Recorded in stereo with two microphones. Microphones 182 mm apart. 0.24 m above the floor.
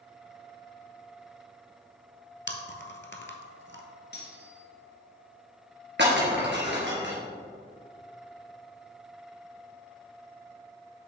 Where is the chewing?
90° left, 0.9 m.